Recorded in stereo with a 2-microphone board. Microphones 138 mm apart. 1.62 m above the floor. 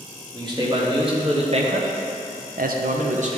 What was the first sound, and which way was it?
A man speaking, 30° right (ahead or behind).